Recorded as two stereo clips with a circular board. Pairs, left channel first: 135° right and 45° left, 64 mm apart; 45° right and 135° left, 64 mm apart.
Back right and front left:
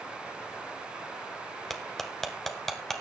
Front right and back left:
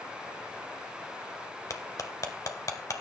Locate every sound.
1.7 s cutlery clinking: 45° right, 1.4 m